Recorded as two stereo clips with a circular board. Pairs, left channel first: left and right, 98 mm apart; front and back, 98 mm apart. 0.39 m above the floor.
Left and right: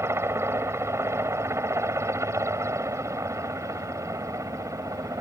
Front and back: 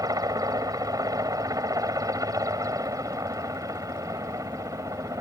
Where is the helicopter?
145° right; by 5.2 s 135° right.